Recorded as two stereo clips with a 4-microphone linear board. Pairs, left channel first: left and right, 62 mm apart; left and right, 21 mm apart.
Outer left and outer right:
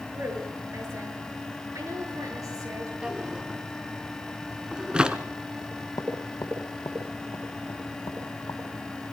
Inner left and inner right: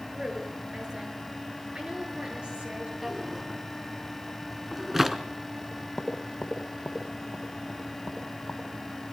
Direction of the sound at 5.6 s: 60° left (ahead or behind).